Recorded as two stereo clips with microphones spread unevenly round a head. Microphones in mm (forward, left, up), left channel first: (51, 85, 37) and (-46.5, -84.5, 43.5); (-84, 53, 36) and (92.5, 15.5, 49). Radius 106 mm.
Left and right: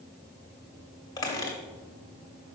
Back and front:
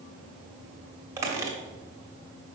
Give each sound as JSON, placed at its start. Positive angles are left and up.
{"t": 1.2, "sound": "a squeak", "azimuth_deg": 15, "distance_m": 0.8}